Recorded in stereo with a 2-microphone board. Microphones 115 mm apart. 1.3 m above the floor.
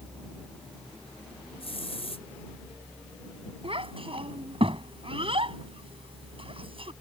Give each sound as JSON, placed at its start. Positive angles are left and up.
{"t": 1.6, "sound": "a hiss", "side_deg": 60}
{"t": 3.6, "sound": "a child speaking", "side_deg": -55}